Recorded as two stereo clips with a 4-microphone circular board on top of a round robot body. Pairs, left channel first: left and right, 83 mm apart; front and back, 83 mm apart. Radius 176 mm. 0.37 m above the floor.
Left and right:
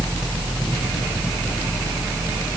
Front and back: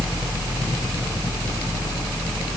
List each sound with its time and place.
Only background noise.